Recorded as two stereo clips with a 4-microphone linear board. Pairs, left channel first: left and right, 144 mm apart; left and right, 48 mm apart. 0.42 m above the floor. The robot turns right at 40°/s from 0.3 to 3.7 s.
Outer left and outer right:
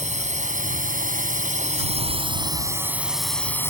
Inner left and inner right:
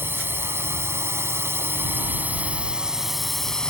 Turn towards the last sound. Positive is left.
turn(degrees=20)